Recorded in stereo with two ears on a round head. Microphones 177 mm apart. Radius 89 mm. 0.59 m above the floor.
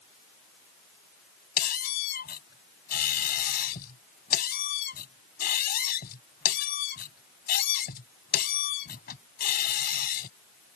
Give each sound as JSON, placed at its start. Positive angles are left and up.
{"t": 1.6, "sound": "a squeak", "side_deg": 50}